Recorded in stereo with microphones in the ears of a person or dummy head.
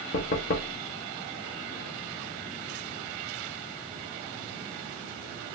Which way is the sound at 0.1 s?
35° left (ahead or behind).